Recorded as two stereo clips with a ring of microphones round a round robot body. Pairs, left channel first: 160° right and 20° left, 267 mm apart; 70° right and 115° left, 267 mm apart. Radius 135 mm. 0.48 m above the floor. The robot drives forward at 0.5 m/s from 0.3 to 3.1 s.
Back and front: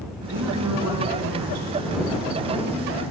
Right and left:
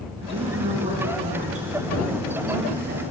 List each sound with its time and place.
0.2 s a woman speaking: 40° left, 4 m; by 3.0 s 60° left, 3.5 m